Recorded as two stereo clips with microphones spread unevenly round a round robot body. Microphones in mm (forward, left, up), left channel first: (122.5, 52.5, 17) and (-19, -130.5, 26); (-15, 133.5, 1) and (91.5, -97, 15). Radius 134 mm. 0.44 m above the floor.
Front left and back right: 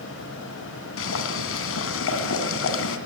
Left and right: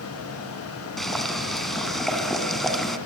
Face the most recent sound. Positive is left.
turn(degrees=25)